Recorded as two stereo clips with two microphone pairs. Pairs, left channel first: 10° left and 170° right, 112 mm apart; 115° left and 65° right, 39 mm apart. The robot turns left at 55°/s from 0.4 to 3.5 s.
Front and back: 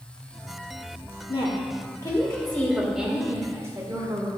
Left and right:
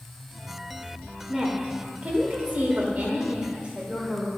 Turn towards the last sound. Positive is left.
turn(degrees=-115)